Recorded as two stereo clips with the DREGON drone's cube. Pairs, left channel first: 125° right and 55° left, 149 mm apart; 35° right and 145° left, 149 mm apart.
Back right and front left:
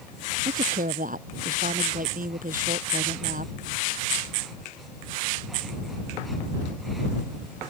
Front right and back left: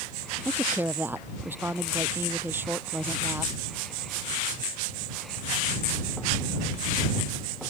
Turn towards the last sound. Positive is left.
turn(degrees=70)